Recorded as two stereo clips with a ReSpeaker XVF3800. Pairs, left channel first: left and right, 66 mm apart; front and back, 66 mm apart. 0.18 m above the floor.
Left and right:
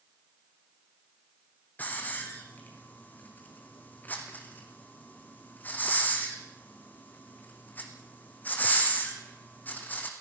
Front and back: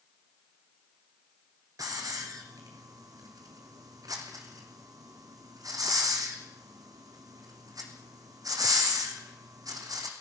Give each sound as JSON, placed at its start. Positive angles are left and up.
{"t": 1.8, "sound": "a hiss", "azimuth_deg": 155, "distance_m": 3.5}